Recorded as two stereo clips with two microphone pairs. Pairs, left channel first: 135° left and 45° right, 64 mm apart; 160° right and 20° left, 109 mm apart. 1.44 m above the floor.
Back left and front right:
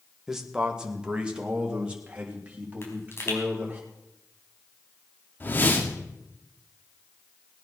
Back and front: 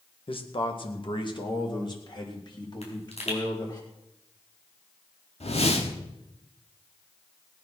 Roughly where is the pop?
Behind.